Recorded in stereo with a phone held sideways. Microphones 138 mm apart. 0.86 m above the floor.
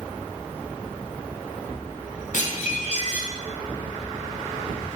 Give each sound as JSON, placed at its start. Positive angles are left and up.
{"t": 2.3, "sound": "dishes clattering", "side_deg": 65, "distance_m": 3.5}